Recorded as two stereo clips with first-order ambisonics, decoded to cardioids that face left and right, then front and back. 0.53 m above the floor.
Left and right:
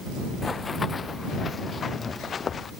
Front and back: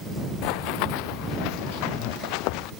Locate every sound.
0.4 s running footsteps: 15° left; by 2.7 s 20° left